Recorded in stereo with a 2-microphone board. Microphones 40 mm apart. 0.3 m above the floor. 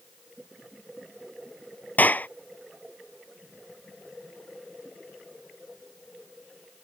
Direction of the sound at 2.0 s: 45° left (ahead or behind).